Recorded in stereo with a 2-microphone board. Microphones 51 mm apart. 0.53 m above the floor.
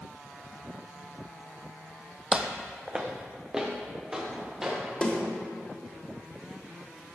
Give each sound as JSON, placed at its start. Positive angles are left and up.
{"t": 2.3, "sound": "footsteps", "side_deg": -20, "distance_m": 0.9}
{"t": 5.0, "sound": "a snare drum", "side_deg": 25, "distance_m": 2.5}